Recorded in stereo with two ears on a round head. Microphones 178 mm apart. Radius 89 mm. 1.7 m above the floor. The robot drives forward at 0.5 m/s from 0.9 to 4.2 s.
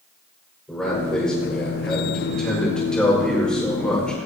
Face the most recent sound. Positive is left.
turn(degrees=5)  # may be behind; listen again after turning